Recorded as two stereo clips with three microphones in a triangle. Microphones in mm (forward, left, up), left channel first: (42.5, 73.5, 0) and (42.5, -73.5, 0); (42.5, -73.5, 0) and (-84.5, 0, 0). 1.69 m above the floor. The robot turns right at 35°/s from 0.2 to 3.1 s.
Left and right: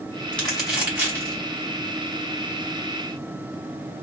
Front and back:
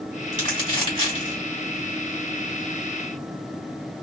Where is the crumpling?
170° left, 2 m; by 1.4 s 155° right, 2 m.